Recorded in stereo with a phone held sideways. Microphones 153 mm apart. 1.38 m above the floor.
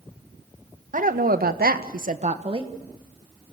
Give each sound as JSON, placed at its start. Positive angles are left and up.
{"t": 0.9, "sound": "a woman speaking", "side_deg": -60, "distance_m": 1.6}